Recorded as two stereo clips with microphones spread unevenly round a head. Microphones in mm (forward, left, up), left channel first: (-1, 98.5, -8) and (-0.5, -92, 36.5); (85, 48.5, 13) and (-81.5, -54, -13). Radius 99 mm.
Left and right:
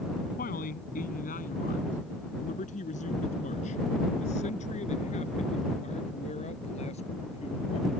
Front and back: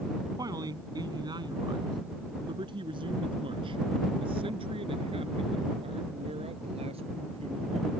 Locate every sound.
0.4 s a man speaking: 140° left; by 7.9 s 150° left